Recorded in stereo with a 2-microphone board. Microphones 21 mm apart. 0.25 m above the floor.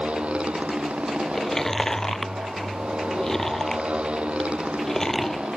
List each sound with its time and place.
0.0 s a motorcycle: 70° right (ahead or behind)
1.3 s chewing: 20° left (ahead or behind)